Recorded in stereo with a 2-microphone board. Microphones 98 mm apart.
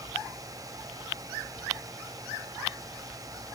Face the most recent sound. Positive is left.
No sound to turn to.